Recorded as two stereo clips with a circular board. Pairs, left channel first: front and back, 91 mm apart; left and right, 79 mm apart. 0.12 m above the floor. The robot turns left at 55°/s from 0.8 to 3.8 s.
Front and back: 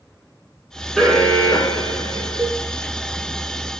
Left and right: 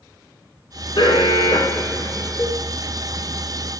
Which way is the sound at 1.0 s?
85° left.